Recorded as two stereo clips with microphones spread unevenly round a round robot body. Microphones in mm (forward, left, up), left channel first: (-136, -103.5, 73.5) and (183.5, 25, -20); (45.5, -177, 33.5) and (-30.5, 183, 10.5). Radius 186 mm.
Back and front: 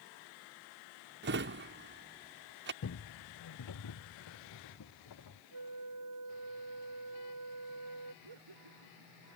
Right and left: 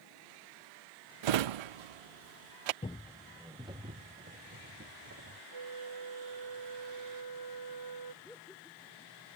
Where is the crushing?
No crushing in this recording.